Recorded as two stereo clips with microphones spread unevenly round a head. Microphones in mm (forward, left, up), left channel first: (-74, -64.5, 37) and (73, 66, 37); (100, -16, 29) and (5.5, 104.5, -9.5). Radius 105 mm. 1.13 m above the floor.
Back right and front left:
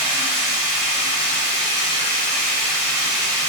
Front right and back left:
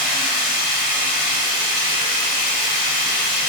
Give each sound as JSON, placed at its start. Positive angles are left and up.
{"t": 0.0, "sound": "running water", "azimuth_deg": -95, "distance_m": 1.4}